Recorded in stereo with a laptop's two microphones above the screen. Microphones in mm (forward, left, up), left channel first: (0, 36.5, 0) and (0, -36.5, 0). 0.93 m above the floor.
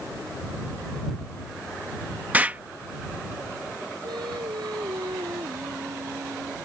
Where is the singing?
85° right.